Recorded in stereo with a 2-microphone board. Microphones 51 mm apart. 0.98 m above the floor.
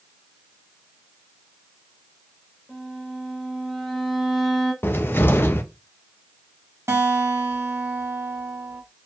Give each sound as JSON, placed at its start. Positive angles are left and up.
{"t": 2.7, "sound": "a violin", "side_deg": 5, "distance_m": 1.8}
{"t": 4.8, "sound": "a cupboard door", "side_deg": 50, "distance_m": 0.5}
{"t": 6.9, "sound": "a guitar", "side_deg": -65, "distance_m": 1.0}